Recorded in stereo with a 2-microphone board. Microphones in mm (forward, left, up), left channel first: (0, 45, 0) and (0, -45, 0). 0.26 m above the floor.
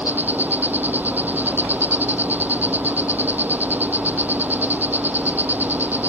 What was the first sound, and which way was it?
An insect, 20° right (ahead or behind).